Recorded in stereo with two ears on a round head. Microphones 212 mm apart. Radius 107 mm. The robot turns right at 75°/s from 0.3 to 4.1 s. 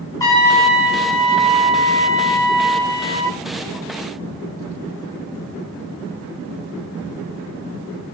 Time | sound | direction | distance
0.2 | a trumpet | 165° left | 6 m